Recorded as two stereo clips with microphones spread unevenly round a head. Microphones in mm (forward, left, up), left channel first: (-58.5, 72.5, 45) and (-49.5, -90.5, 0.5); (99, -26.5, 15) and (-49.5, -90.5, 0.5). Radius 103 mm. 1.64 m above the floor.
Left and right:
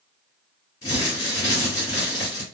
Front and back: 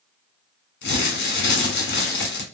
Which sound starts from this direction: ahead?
Crumpling, at 0.8 s.